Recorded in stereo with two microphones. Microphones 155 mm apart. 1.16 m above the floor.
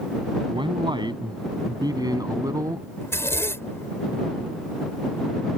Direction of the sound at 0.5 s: 30° right (ahead or behind).